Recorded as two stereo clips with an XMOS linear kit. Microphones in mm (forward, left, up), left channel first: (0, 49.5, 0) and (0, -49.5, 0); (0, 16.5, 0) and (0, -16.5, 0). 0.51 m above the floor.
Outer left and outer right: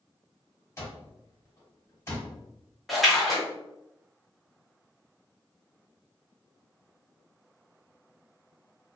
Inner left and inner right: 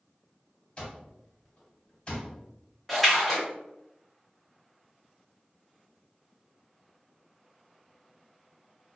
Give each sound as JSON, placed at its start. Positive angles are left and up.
{"t": 0.8, "sound": "an alarm clock", "side_deg": 30, "distance_m": 1.4}
{"t": 2.9, "sound": "a splash", "side_deg": 0, "distance_m": 1.2}